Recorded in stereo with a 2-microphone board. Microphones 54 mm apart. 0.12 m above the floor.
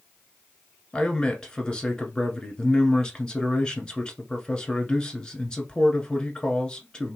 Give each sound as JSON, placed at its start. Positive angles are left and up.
{"t": 0.9, "sound": "a man speaking", "side_deg": 15, "distance_m": 1.2}